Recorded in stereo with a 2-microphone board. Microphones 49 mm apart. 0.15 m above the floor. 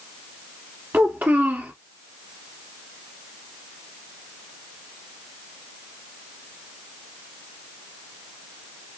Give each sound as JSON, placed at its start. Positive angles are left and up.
{"t": 0.9, "sound": "a child speaking", "side_deg": -45, "distance_m": 1.2}